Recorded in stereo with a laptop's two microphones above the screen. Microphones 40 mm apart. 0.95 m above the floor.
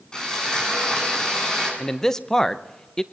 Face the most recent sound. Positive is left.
turn(degrees=15)  # may be behind; listen again after turning